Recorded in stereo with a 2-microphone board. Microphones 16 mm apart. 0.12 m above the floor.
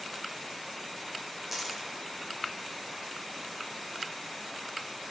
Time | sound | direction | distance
1.5 | a dropped coin | 15° right (ahead or behind) | 1.2 m